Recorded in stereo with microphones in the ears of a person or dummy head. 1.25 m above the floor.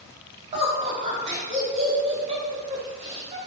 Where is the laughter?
30° right (ahead or behind), 2 m.